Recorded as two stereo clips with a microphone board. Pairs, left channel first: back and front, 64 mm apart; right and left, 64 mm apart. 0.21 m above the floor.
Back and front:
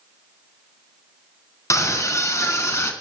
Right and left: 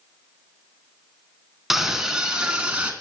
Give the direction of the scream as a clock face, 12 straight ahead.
6 o'clock.